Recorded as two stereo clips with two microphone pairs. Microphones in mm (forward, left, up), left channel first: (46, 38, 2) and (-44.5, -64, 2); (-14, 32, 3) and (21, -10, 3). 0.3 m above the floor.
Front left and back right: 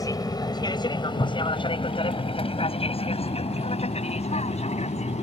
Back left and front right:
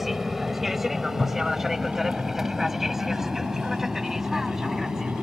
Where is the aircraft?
30° left.